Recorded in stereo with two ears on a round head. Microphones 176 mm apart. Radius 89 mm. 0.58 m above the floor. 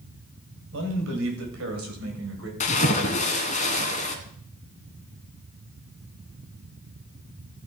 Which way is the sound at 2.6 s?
35° left (ahead or behind).